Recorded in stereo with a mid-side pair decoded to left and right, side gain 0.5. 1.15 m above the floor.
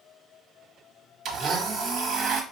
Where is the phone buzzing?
I don't hear a phone buzzing.